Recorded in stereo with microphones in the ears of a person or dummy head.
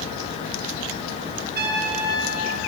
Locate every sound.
1.6 s a trumpet: 60° right (ahead or behind), 5 m